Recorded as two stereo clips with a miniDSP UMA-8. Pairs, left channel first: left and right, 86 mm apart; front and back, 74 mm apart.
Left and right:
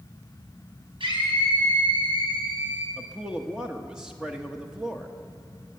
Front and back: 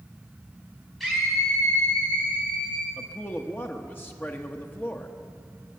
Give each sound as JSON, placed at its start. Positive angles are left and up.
{"t": 1.0, "sound": "a scream", "azimuth_deg": -90, "distance_m": 5.0}
{"t": 3.0, "sound": "a man speaking", "azimuth_deg": -20, "distance_m": 0.9}